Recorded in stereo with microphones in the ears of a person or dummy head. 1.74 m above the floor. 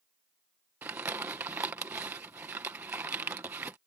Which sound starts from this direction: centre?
Crumpling, at 0.8 s.